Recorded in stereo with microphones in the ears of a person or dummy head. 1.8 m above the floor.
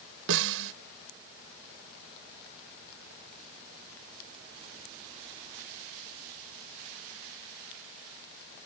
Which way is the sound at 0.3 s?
75° right (ahead or behind).